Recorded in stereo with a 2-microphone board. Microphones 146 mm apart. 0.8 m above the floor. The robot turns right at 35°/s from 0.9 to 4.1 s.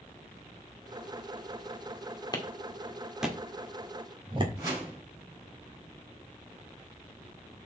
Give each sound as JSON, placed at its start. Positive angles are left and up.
{"t": 2.3, "sound": "a clap", "side_deg": 25, "distance_m": 1.8}
{"t": 4.6, "sound": "a whoosh", "side_deg": -25, "distance_m": 5.5}